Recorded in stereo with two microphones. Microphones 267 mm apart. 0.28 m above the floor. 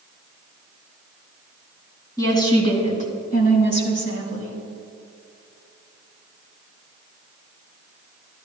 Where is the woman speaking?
15° left (ahead or behind), 2.5 m; by 4.6 s 55° left (ahead or behind), 2.5 m.